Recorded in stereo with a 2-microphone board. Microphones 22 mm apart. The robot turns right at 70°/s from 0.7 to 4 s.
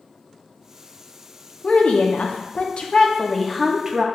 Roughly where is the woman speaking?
Ahead left.